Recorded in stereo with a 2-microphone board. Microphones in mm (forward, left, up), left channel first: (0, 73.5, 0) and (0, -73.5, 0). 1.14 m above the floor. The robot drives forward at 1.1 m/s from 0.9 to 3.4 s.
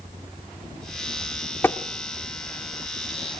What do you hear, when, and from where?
1.6 s tapping: 15° left (ahead or behind), 0.8 m; by 1.8 s 10° left (ahead or behind), 0.9 m